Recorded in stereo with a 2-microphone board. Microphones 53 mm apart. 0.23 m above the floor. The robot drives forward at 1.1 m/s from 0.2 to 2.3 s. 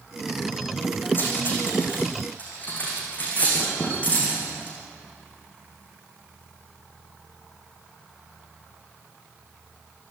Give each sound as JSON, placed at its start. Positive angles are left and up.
{"t": 1.1, "sound": "cutlery clinking", "side_deg": 35, "distance_m": 7.0}